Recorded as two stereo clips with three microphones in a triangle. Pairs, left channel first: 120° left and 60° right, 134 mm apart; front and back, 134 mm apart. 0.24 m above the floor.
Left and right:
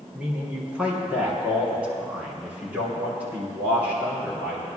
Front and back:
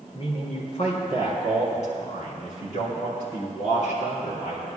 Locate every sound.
0.1 s a man speaking: 20° left, 2.5 m